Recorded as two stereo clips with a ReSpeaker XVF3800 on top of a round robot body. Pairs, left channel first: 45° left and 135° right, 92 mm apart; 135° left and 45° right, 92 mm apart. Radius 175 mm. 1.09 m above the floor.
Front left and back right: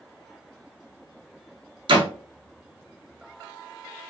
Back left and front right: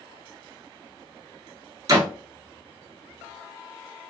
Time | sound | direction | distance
1.9 | a door slam | 100° right | 0.8 m